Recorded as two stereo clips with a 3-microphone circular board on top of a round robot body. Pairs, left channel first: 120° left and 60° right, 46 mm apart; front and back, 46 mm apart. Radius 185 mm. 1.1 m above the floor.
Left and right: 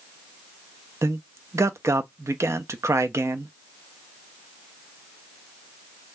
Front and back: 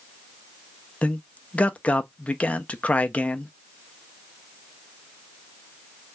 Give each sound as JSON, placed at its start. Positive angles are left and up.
{"t": 1.0, "sound": "a man speaking", "azimuth_deg": -60, "distance_m": 0.6}